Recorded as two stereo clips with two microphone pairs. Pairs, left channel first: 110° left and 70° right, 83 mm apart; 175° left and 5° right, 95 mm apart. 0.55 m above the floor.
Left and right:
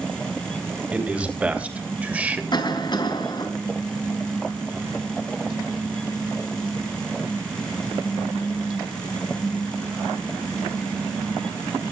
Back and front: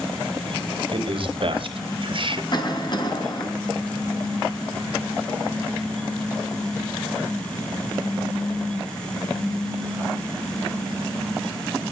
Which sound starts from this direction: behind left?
A cough, at 2.5 s.